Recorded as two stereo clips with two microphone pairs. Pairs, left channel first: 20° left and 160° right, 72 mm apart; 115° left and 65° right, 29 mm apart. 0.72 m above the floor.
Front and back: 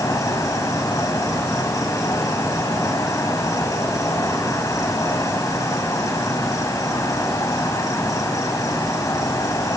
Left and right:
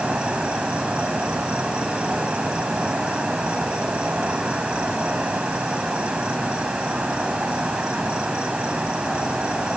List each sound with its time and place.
0.0 s an insect: 15° right, 1.9 m